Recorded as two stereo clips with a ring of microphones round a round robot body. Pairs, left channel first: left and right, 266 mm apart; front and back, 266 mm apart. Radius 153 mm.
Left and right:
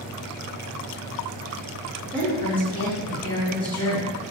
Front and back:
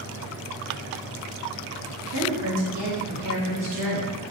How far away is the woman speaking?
About 1.9 m.